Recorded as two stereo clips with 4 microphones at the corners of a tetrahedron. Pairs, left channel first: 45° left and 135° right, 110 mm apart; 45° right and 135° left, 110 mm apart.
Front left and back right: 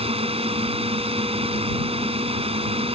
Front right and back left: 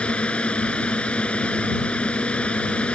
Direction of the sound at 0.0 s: 125° right.